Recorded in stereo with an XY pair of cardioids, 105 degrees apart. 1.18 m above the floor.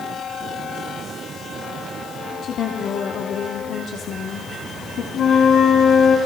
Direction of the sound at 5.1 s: 70° left.